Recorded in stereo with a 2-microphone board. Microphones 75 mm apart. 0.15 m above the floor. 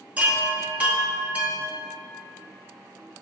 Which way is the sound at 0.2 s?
20° right (ahead or behind).